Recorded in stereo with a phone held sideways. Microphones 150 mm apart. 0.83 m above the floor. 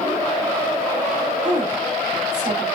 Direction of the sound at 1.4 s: 45° right (ahead or behind).